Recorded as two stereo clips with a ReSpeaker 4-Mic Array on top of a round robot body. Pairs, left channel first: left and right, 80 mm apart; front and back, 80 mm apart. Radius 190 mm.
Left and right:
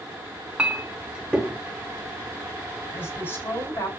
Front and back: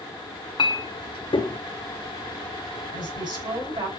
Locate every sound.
0.6 s a clink: 15° right, 1.1 m
2.9 s a woman speaking: 155° left, 7 m